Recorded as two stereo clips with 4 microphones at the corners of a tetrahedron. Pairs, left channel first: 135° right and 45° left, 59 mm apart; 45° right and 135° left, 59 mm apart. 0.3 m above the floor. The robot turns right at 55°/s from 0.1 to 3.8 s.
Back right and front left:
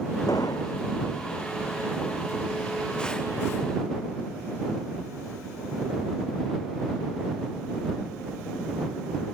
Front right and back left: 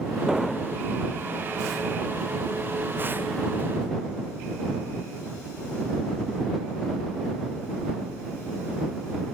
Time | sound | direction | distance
0.3 | an explosion | 140° right | ?